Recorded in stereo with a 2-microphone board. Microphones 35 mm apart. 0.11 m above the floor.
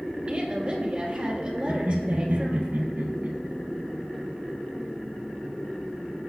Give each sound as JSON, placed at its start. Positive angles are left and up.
{"t": 0.3, "sound": "a woman speaking", "side_deg": -35, "distance_m": 3.0}
{"t": 1.7, "sound": "laughter", "side_deg": -65, "distance_m": 3.0}